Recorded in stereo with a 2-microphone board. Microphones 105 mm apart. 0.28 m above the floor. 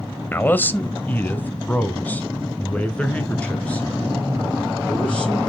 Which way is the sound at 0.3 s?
20° left (ahead or behind).